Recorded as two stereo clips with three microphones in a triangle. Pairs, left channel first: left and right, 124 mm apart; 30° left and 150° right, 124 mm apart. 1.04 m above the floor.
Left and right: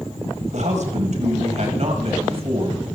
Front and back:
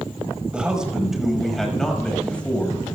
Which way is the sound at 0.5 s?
70° right.